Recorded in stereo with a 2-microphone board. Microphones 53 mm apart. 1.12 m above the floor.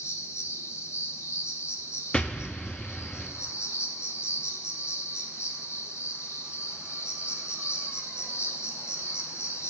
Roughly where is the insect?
Left.